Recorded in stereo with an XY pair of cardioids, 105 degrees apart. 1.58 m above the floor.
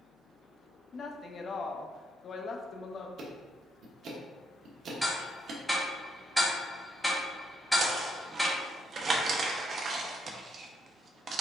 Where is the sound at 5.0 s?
Straight ahead, 1.3 m.